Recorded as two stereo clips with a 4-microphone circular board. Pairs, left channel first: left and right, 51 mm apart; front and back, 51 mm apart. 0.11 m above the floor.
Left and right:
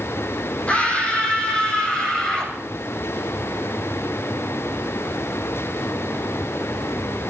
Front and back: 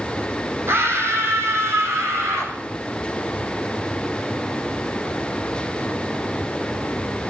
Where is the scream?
150° left, 5 m; by 2.5 s 165° left, 8 m.